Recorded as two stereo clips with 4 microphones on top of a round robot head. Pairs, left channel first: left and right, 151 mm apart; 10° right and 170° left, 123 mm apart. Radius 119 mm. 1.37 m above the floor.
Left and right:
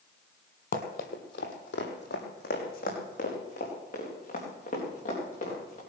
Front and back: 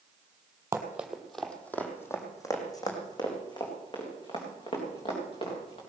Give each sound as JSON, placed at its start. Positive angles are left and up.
{"t": 0.7, "sound": "running footsteps", "azimuth_deg": 105, "distance_m": 2.0}